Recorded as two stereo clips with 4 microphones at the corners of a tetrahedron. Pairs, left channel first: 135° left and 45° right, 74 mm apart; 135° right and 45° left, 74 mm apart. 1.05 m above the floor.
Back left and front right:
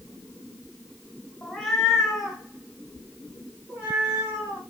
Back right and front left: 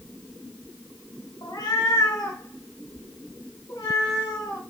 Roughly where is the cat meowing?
Behind right.